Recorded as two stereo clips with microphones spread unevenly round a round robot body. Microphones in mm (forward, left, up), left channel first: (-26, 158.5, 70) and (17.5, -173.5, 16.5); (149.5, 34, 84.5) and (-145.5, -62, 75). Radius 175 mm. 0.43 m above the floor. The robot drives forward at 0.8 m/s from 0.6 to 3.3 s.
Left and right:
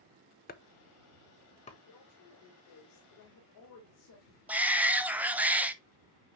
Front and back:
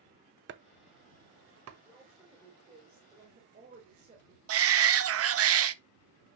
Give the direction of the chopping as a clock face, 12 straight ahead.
7 o'clock.